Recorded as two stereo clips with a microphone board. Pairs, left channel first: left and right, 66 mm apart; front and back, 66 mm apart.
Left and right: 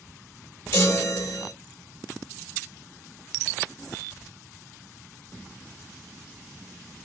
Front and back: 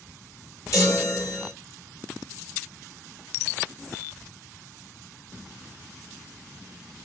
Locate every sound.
0.7 s a chime: 40° left, 4 m